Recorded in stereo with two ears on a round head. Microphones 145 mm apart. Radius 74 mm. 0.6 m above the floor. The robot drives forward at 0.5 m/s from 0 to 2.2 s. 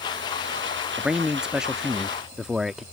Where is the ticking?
I don't hear ticking.